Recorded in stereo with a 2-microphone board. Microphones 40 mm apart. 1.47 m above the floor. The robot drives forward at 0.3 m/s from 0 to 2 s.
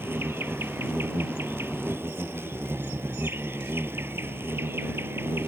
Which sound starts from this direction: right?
An insect, at 0.0 s.